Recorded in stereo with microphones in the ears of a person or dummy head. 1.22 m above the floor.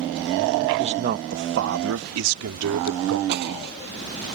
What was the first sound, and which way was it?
A man speaking, 35° right (ahead or behind).